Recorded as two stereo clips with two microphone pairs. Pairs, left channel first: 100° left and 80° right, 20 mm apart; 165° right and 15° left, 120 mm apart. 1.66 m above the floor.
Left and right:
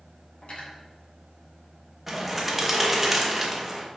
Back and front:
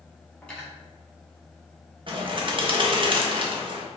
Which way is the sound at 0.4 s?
115° left.